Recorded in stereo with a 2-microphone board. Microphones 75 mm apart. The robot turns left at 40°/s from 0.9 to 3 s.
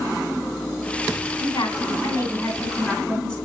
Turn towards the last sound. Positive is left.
turn(degrees=10)